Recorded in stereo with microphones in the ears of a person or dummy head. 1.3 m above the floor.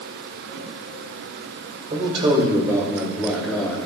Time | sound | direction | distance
1.9 | a man speaking | 40° right (ahead or behind) | 2.5 m